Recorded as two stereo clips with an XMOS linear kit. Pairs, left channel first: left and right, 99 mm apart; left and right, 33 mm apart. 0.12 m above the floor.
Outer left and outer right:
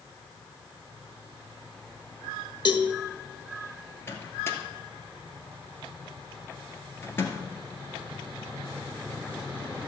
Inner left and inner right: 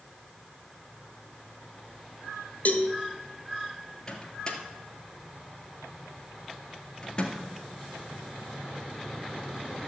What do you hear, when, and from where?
2.6 s a cowbell: 55° left (ahead or behind), 1.2 m
4.1 s a microwave: 25° left (ahead or behind), 1.8 m